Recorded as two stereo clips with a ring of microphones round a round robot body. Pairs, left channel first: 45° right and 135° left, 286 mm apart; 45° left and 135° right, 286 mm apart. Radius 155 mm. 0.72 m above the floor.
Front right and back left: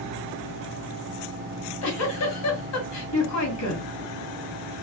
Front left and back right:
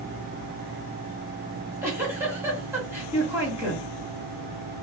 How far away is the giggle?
About 1.7 m.